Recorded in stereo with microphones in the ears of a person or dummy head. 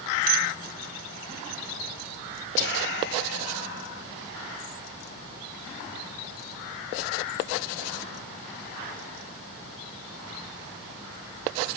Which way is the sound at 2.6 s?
65° left (ahead or behind).